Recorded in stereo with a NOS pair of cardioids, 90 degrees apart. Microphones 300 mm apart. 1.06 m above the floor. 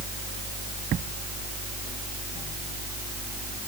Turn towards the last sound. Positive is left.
No sound to turn to.